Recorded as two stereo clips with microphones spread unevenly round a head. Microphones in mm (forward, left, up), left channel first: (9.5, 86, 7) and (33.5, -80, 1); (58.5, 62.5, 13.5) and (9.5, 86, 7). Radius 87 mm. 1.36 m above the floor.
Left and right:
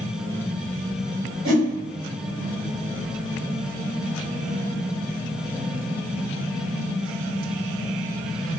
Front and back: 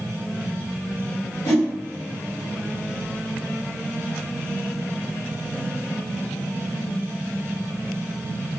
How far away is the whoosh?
About 1.3 m.